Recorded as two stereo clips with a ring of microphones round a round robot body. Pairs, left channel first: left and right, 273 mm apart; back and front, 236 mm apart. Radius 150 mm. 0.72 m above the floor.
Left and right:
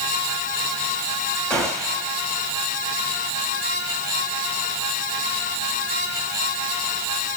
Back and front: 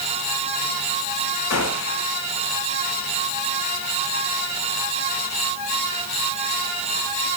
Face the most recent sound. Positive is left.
turn(degrees=175)